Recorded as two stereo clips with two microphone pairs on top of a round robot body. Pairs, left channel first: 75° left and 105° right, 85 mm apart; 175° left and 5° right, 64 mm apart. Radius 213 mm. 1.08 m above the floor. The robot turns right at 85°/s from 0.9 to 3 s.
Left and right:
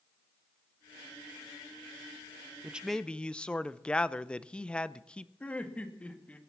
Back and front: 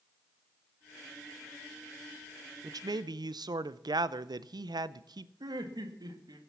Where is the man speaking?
35° right, 0.7 m; by 5.3 s 5° right, 0.7 m.